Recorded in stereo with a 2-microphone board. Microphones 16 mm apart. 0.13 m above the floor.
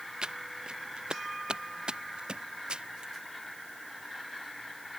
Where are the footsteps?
65° right (ahead or behind); by 3.1 s 75° right (ahead or behind).